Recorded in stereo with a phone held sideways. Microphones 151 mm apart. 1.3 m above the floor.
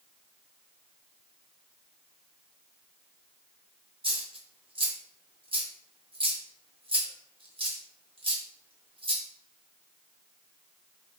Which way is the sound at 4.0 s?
35° right (ahead or behind).